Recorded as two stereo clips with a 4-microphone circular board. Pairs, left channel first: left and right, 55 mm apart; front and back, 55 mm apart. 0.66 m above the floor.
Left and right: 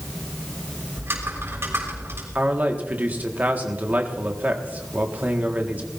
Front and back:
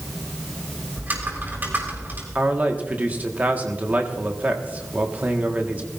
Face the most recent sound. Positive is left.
turn(degrees=-135)